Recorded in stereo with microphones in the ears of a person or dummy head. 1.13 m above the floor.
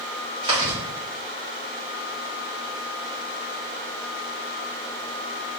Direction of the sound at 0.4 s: 25° right (ahead or behind).